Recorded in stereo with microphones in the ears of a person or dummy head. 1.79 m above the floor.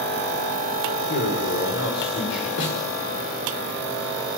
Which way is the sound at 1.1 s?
65° left (ahead or behind).